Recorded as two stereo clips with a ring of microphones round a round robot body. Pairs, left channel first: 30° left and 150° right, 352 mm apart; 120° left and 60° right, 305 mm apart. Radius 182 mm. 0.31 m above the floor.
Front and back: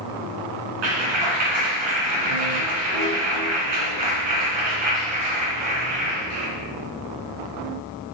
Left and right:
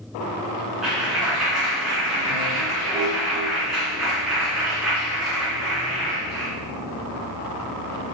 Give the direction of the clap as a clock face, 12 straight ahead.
5 o'clock.